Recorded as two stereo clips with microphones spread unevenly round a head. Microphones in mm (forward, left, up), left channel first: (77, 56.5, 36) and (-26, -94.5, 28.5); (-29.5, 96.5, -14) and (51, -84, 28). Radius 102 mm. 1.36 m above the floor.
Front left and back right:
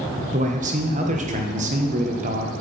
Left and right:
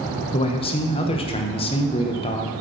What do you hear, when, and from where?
0.3 s a man speaking: straight behind, 0.9 m